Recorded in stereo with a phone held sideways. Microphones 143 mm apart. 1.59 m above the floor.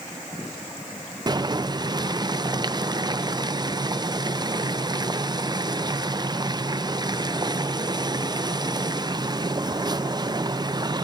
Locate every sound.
1.3 s boiling: 30° right (ahead or behind), 0.5 m